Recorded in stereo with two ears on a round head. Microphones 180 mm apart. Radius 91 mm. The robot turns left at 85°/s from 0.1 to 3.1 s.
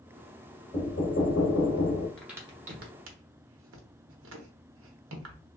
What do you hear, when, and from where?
0.7 s knocking: 155° left, 1.0 m; by 2.1 s 45° left, 1.0 m
2.2 s a crack: 5° left (ahead or behind), 0.9 m; by 5.4 s 70° right (ahead or behind), 0.9 m